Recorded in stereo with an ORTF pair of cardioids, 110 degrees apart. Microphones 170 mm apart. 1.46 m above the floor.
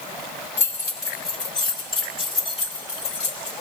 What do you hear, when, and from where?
0.6 s keys jangling: 20° left, 3.5 m; by 3.5 s 45° left, 3.5 m